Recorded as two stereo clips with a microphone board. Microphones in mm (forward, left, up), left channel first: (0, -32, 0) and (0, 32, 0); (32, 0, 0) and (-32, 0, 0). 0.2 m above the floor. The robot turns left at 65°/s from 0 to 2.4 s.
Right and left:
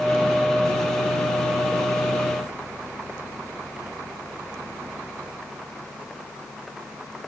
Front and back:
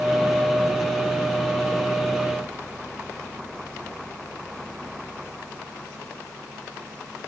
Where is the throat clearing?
No throat clearing in this recording.